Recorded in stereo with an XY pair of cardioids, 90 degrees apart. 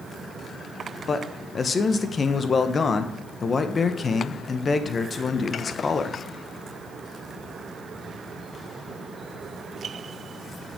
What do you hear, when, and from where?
1.1 s a man speaking: 40° left, 1.0 m